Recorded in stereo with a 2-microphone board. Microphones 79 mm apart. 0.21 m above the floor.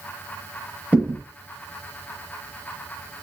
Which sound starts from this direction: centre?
A thud, at 0.9 s.